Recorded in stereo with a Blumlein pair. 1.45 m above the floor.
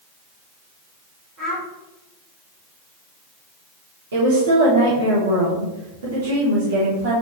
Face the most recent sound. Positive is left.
turn(degrees=-60)